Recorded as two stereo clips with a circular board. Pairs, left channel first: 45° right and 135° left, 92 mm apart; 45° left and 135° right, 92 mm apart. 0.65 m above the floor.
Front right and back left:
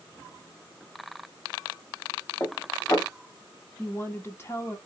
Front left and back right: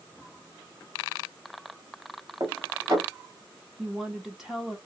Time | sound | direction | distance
2.4 | dishes clattering | 95° right | 1.8 m
3.8 | a woman speaking | 55° right | 0.7 m